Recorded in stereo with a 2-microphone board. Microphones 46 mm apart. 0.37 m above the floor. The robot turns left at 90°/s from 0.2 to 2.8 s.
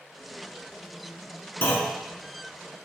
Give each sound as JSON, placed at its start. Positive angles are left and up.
{"t": 1.6, "sound": "a clunk", "azimuth_deg": 50, "distance_m": 0.9}